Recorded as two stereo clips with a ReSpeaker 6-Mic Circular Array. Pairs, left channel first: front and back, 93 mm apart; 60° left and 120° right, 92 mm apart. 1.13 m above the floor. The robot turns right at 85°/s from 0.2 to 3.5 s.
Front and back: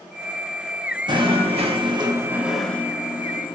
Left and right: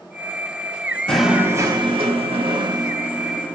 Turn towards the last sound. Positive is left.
turn(degrees=-15)